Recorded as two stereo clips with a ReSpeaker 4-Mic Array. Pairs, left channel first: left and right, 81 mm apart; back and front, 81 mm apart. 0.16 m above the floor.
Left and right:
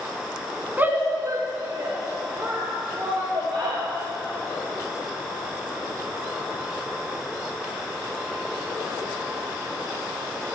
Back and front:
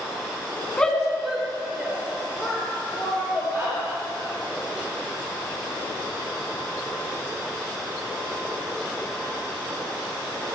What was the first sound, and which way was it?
A shout, 120° right.